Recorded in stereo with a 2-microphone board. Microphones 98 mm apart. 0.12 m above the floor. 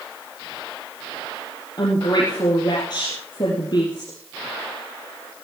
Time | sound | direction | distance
1.8 | a woman speaking | 45° left (ahead or behind) | 3.5 m